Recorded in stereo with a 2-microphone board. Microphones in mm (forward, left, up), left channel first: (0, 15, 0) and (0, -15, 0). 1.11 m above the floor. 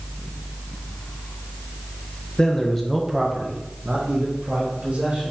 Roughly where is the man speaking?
Left.